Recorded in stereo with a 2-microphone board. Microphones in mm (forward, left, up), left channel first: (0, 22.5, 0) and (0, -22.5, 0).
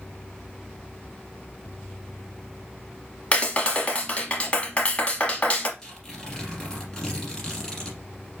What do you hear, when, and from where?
3.3 s a clap: 30° left (ahead or behind), 0.9 m
5.8 s tearing paper: 15° left (ahead or behind), 2 m